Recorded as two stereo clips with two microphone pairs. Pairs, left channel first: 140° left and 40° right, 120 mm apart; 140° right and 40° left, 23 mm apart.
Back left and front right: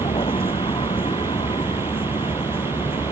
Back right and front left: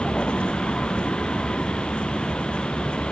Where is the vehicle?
Straight behind.